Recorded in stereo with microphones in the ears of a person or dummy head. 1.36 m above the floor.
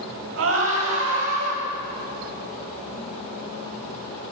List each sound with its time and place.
0.4 s a scream: 70° right (ahead or behind), 8 m; by 1.6 s 75° right (ahead or behind), 9.5 m